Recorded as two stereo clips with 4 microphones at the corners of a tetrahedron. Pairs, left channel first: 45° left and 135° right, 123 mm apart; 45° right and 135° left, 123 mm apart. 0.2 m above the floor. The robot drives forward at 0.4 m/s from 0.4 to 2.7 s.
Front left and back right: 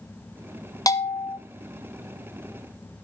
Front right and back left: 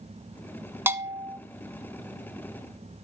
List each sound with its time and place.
0.9 s a bell: 80° left, 1.0 m; by 1.4 s 100° left, 1.0 m